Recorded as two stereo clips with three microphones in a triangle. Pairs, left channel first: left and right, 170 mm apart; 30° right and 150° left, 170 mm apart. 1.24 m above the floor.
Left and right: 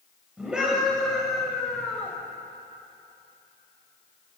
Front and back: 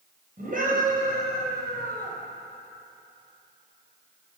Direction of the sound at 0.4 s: 175° right.